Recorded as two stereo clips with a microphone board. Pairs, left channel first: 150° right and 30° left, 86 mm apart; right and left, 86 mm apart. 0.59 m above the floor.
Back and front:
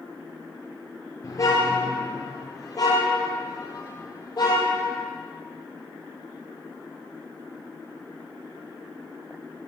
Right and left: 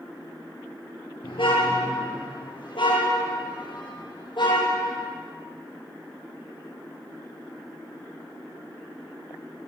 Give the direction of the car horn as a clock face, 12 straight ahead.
3 o'clock.